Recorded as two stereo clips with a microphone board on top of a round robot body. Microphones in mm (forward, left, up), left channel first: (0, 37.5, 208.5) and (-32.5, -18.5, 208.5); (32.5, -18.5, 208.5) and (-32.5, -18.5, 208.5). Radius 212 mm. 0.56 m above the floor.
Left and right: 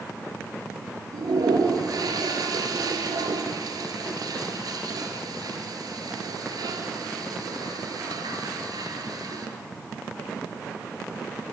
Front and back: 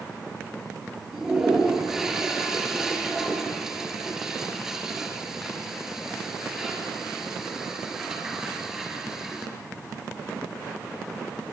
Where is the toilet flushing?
95° right, 4 m.